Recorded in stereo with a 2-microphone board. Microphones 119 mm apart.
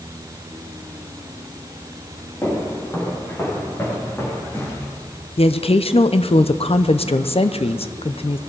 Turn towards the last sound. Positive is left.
turn(degrees=55)  # may be behind; listen again after turning